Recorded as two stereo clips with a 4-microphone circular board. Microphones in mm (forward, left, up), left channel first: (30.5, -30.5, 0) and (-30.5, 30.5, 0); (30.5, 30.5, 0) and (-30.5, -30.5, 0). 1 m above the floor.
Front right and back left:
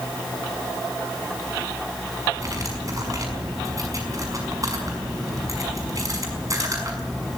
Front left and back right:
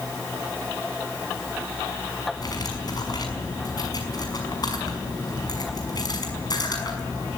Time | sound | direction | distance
2.4 | cutlery clinking | 85° left | 5.5 m